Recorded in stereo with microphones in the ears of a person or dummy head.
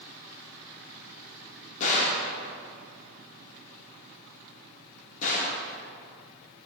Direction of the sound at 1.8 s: 45° left (ahead or behind).